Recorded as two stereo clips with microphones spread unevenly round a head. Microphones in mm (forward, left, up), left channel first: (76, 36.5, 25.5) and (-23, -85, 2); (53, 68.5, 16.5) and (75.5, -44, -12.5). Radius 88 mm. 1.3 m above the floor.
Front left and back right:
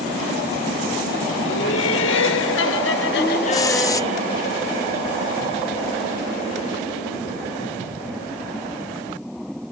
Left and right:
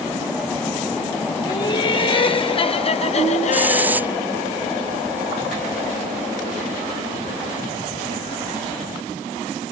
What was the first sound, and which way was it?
Laughter, 55° left.